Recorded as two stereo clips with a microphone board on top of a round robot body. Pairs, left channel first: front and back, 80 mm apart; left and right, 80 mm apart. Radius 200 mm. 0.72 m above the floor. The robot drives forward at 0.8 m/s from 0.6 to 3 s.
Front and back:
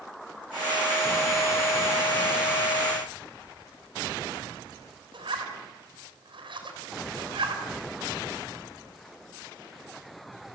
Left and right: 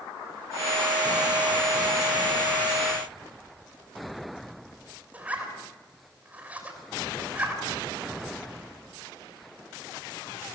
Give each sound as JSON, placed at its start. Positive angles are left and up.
{"t": 5.1, "sound": "a zipper", "azimuth_deg": -165, "distance_m": 6.5}